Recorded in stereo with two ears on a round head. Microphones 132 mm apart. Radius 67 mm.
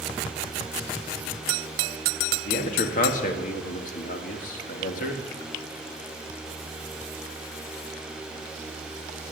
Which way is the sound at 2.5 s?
60° left (ahead or behind).